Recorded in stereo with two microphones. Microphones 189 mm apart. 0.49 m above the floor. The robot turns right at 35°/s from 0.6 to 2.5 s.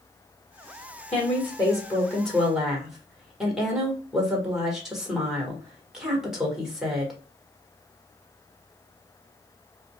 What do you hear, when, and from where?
1.1 s a woman speaking: 135° left, 1.6 m; by 7.1 s 175° right, 1.6 m